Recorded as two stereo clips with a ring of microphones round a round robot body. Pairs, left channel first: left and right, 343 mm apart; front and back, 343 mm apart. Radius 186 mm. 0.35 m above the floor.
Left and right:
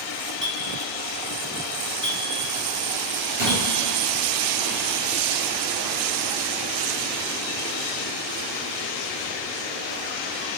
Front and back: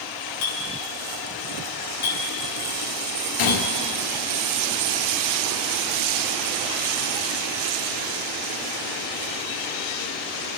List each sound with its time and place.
0.4 s a clink: 20° right, 2.5 m
3.4 s a gunshot: 20° right, 2 m